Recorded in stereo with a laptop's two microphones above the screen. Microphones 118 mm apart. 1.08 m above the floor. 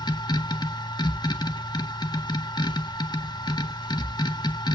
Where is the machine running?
35° left (ahead or behind), 1.5 m.